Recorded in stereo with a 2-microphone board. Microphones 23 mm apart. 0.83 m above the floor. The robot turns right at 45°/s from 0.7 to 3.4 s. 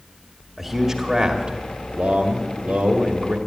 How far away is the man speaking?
About 2.0 m.